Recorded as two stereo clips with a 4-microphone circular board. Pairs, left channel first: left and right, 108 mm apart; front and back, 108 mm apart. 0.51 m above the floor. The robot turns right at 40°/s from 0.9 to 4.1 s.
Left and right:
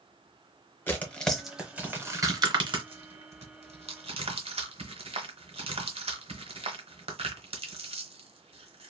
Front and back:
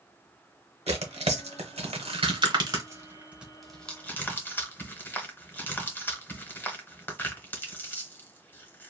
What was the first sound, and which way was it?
Tearing paper, 160° left.